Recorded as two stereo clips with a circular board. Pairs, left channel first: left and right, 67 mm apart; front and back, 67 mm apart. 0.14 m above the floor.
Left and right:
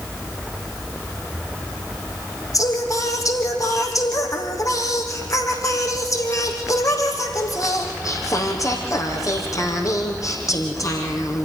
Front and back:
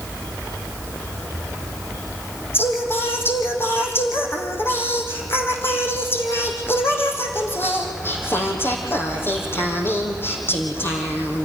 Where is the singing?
55° left, 3.5 m.